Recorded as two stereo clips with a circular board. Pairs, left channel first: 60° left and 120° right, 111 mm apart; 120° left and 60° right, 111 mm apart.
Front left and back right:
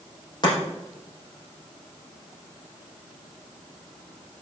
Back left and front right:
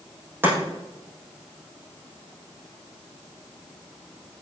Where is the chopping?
10° left, 5.5 m.